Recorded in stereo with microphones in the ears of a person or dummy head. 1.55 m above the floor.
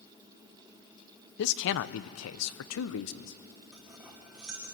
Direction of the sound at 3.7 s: 10° right (ahead or behind).